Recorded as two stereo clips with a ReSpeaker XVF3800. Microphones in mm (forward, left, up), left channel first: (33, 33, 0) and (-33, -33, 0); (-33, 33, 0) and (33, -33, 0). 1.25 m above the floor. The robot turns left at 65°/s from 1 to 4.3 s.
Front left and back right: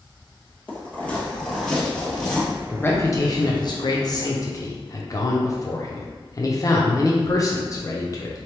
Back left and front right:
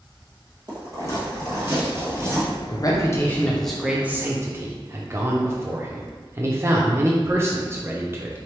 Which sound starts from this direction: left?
A man speaking, at 2.7 s.